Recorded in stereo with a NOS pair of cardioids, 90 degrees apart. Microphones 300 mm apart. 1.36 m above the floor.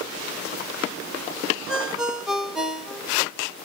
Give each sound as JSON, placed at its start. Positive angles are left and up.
{"t": 1.7, "sound": "a ringtone", "azimuth_deg": 0, "distance_m": 1.4}